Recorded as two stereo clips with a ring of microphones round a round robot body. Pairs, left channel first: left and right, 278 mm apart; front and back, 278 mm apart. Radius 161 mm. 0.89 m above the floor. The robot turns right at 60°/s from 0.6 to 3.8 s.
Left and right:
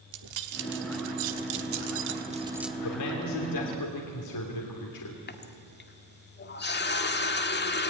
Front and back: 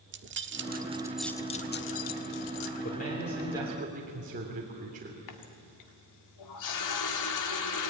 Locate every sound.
0.1 s keys jangling: 125° right, 1.3 m; by 2.7 s 5° left, 1.3 m
2.8 s a man speaking: 55° left, 3 m; by 5.2 s 115° left, 3 m
5.3 s a running tap: 35° left, 1.6 m